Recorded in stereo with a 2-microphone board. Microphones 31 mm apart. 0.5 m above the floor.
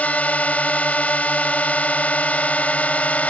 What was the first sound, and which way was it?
A drone, 55° left (ahead or behind).